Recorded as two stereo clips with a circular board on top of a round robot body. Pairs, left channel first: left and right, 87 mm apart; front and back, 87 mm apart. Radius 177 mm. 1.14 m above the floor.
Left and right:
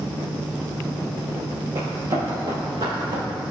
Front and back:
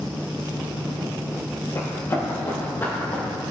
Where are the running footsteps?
50° right, 3 m; by 3.2 s 65° right, 5 m.